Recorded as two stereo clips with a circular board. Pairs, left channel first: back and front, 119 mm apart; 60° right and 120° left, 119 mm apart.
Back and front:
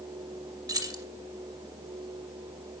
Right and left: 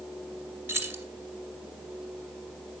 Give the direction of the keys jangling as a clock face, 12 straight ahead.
10 o'clock.